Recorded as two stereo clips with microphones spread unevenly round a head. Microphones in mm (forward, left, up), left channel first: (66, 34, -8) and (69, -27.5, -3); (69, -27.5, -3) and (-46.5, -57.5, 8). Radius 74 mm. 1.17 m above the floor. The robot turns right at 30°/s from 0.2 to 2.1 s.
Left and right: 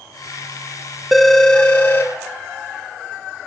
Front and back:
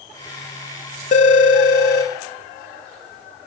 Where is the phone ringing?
Straight ahead, 0.6 m; by 2.1 s 30° left, 0.6 m.